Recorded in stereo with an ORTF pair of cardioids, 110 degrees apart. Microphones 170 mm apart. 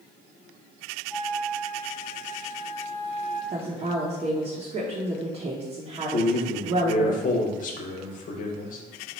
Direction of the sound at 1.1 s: 10° left.